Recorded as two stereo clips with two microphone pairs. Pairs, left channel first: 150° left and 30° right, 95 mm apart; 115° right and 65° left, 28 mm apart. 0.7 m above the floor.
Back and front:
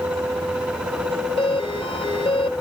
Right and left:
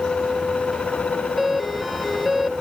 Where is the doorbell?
145° left.